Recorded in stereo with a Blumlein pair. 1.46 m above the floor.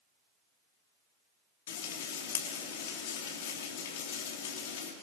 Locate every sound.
1.7 s frying: 55° left, 3.5 m